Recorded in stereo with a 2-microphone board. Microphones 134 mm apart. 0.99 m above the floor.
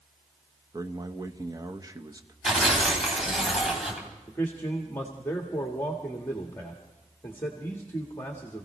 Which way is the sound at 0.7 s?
30° right (ahead or behind).